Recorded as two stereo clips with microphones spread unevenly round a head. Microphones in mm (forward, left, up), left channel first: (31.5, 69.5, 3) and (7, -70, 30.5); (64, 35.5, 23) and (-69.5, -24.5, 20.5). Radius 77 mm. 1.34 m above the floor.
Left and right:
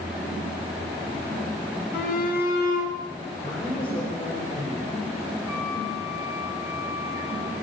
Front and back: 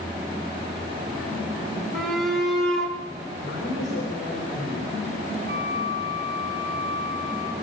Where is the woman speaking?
Straight ahead, 4 m.